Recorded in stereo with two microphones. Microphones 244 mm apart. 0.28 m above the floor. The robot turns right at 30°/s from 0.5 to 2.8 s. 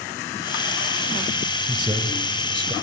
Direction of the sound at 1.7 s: 20° right (ahead or behind).